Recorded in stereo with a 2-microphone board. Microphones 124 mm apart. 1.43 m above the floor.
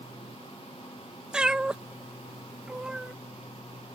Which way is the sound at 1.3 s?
5° right (ahead or behind).